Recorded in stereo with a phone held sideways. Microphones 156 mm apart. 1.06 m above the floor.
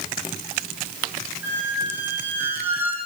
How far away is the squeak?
About 4 m.